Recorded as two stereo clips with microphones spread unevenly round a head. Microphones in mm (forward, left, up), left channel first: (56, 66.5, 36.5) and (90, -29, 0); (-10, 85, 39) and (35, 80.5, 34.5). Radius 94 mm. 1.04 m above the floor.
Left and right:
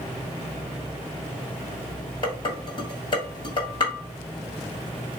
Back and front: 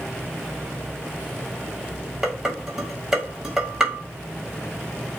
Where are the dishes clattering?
70° left, 1.3 m.